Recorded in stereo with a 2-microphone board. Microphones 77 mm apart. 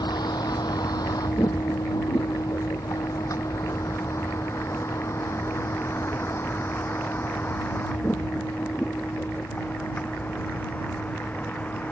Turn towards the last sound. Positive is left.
turn(degrees=20)  # may be behind; listen again after turning